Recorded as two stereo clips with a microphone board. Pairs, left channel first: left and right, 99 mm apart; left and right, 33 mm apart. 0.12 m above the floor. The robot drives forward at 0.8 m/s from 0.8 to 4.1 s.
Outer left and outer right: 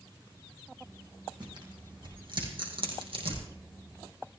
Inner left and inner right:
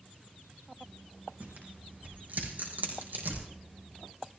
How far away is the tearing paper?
About 5 m.